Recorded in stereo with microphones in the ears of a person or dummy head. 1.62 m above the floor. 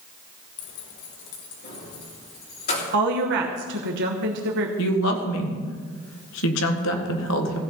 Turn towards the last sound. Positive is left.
turn(degrees=70)  # may be behind; listen again after turning